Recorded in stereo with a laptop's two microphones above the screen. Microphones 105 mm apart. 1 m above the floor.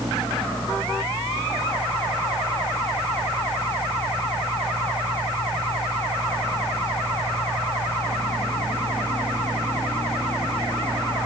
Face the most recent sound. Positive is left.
turn(degrees=55)  # may be behind; listen again after turning